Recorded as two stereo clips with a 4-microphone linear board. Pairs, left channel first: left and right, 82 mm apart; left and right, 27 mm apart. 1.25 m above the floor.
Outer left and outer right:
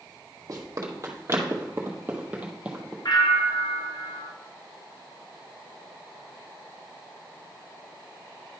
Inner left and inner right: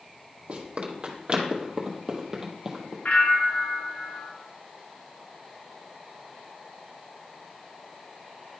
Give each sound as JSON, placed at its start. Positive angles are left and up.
{"t": 0.5, "sound": "running footsteps", "side_deg": -45, "distance_m": 1.8}
{"t": 3.0, "sound": "a bell", "side_deg": 55, "distance_m": 0.7}